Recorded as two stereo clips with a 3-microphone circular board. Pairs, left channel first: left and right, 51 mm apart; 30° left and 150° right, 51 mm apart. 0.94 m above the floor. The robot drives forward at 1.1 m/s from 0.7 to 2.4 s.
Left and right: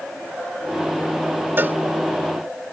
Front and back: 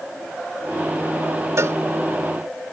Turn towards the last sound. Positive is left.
turn(degrees=-145)